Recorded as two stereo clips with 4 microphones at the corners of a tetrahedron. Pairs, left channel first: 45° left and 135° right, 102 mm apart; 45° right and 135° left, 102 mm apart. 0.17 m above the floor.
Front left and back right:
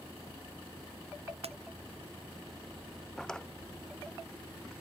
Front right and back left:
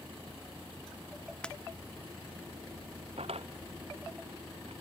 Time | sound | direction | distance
1.4 | breaking glass | 125° right | ?
3.2 | a drawer | 130° left | ?